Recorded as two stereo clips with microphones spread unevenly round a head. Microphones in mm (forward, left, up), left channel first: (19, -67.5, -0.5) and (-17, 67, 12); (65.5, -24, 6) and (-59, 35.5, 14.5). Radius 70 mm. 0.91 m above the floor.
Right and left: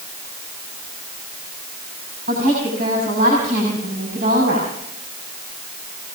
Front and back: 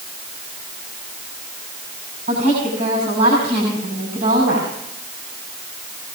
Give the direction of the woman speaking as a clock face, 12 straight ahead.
8 o'clock.